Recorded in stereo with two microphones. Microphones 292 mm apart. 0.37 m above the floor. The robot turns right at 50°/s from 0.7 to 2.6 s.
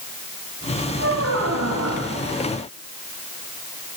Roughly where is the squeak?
Behind right.